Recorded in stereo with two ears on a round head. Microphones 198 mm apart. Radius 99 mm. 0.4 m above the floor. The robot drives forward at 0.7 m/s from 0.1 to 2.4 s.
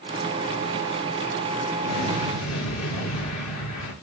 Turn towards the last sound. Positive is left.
turn(degrees=80)